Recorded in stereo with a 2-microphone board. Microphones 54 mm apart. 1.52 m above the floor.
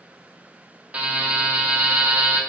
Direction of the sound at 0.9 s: 25° right (ahead or behind).